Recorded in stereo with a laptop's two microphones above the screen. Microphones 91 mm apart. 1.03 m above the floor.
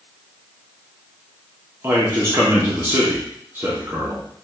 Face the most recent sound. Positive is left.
turn(degrees=-25)  # may be behind; listen again after turning